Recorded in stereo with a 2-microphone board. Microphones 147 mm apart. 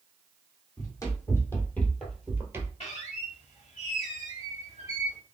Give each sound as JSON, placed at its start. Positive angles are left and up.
{"t": 0.8, "sound": "running footsteps", "side_deg": 25, "distance_m": 1.8}
{"t": 2.8, "sound": "a squeak", "side_deg": 50, "distance_m": 2.0}